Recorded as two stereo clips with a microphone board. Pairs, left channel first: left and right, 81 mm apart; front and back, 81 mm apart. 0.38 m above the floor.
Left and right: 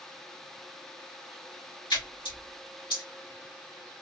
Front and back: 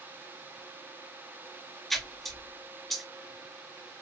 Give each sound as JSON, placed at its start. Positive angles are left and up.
{"t": 1.9, "sound": "a splash", "azimuth_deg": 85, "distance_m": 1.9}